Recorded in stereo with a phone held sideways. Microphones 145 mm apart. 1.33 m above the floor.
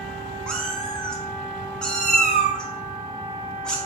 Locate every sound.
0.5 s a cat meowing: 5° left (ahead or behind), 1.1 m